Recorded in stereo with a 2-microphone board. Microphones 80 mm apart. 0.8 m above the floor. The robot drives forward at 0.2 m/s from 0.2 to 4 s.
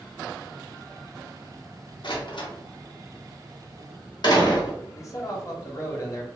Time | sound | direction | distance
2.0 | a door slam | 75° left (ahead or behind) | 0.8 m
4.9 | a man speaking | 40° left (ahead or behind) | 0.7 m